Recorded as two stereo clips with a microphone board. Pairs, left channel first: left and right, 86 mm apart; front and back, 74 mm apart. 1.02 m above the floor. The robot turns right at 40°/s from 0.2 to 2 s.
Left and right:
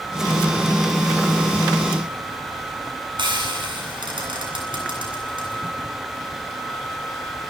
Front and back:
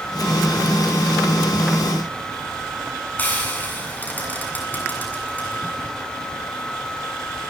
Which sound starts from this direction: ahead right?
Frying, at 3.2 s.